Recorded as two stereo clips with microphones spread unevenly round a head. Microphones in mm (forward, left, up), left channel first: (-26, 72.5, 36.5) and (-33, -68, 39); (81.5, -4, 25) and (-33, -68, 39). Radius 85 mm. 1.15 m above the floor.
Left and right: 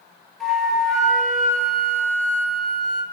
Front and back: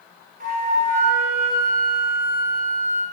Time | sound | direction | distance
0.4 | a flute | 175° left | 3 m